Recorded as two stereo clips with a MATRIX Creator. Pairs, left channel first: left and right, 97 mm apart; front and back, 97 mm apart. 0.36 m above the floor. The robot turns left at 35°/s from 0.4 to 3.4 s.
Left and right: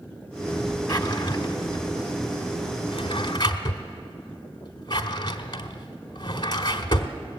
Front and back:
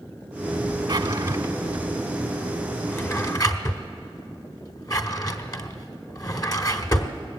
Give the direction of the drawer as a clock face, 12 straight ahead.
7 o'clock.